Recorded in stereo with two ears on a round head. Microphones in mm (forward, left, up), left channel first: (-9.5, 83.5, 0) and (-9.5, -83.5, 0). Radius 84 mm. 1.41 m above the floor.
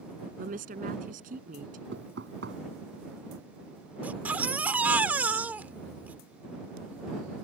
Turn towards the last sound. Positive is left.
turn(degrees=-10)  # may be behind; listen again after turning